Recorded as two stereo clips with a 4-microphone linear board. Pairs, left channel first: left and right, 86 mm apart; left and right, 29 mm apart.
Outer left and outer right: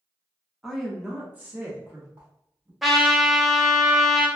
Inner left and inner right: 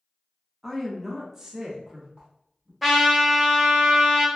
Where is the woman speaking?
5° left (ahead or behind), 0.7 m; by 2.7 s 35° right (ahead or behind), 1.0 m.